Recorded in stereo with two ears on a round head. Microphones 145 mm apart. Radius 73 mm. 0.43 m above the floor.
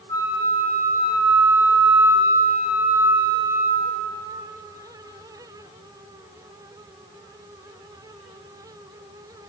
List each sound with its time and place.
0.1 s a flute: 20° left (ahead or behind), 2.5 m